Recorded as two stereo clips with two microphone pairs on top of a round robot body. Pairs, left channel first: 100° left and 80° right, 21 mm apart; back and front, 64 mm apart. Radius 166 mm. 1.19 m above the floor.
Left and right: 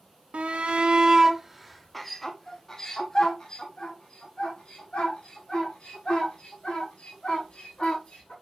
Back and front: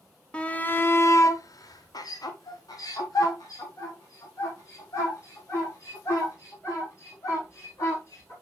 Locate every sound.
0.3 s a shout: 110° right, 1.1 m; by 8.3 s 140° left, 5.5 m